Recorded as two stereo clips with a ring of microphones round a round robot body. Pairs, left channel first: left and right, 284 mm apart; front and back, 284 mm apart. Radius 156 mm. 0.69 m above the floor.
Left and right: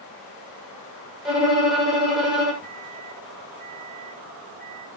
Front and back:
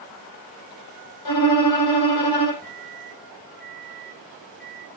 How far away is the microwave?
About 3 m.